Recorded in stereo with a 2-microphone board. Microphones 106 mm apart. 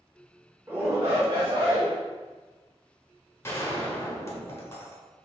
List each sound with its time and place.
0.7 s a shout: 20° right (ahead or behind), 0.9 m; by 1.9 s 55° right (ahead or behind), 1.4 m
3.4 s a gunshot: 25° left (ahead or behind), 1.0 m